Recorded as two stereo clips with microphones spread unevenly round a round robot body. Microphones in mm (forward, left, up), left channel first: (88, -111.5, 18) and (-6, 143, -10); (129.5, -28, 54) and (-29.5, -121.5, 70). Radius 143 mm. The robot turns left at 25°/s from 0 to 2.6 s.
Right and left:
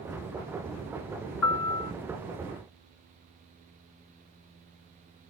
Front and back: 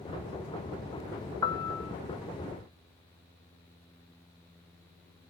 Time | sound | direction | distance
1.4 | a piano | 40° right | 0.9 m